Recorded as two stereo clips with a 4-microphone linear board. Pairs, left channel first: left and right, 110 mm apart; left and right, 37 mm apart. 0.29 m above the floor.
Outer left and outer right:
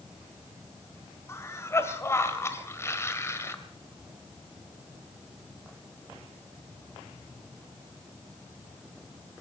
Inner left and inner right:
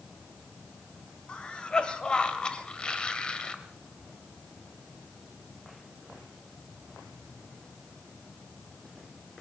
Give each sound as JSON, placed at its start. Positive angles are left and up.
{"t": 1.3, "sound": "a cough", "side_deg": 25, "distance_m": 1.7}